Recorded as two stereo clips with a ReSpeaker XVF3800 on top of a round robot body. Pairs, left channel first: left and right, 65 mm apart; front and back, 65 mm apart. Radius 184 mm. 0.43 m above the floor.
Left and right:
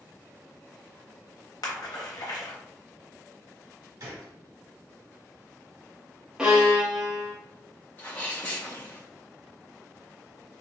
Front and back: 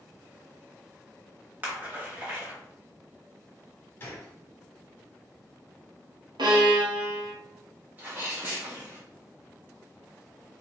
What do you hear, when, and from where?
1.6 s a splash: 115° left, 1.1 m
4.0 s a gunshot: 60° right, 0.5 m
6.4 s a violin: 175° right, 0.7 m
8.0 s a sneeze: 135° left, 1.4 m